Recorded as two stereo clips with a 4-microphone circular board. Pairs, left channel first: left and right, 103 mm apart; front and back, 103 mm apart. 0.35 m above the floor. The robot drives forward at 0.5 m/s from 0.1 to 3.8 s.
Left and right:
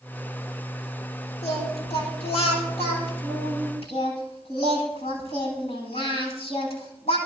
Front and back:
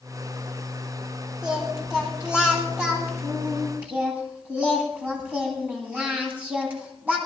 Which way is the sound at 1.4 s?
100° left.